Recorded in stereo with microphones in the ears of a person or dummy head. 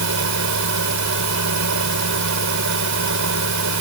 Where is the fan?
65° right (ahead or behind).